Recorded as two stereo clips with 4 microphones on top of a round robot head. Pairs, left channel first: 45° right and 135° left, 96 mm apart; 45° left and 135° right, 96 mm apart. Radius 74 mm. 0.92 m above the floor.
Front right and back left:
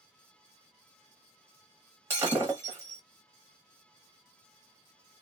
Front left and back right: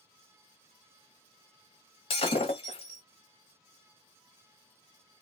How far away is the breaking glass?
About 1.1 m.